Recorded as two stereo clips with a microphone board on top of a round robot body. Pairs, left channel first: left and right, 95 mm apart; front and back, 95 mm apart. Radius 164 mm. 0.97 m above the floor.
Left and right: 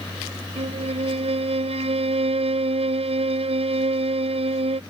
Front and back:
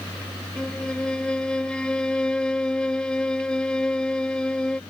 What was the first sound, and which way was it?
A violin, 80° right.